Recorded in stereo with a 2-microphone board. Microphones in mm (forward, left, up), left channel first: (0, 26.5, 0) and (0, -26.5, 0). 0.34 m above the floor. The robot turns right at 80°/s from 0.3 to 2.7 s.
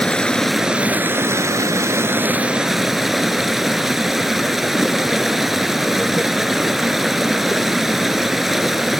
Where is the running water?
160° left, 0.8 m; by 9.0 s 5° right, 0.8 m.